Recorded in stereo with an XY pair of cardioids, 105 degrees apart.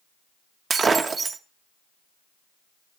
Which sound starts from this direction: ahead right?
Breaking glass, at 0.7 s.